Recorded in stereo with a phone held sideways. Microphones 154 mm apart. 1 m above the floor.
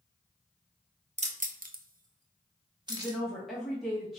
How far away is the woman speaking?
About 1.2 m.